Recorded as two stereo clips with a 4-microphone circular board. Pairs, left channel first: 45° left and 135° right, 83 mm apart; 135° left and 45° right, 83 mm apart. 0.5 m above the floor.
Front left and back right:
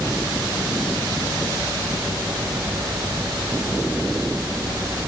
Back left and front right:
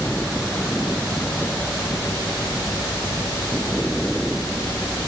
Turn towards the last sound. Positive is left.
No sound to turn to.